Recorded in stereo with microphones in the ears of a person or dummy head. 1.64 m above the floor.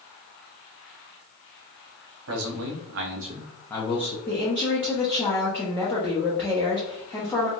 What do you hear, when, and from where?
2.3 s a man speaking: 85° right, 1.3 m; by 4.2 s 40° left (ahead or behind), 0.9 m
4.3 s a woman speaking: 10° left (ahead or behind), 1.0 m